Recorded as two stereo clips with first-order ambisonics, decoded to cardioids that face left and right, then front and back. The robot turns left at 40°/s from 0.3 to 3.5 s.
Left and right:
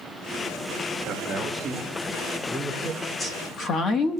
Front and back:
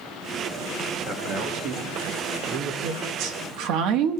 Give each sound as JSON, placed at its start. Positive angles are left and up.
{"t": 1.1, "sound": "a man speaking", "azimuth_deg": -130, "distance_m": 1.8}
{"t": 2.8, "sound": "a woman speaking", "azimuth_deg": 180, "distance_m": 1.3}